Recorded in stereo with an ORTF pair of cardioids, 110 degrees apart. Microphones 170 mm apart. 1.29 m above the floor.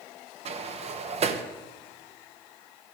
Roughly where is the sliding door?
Ahead right.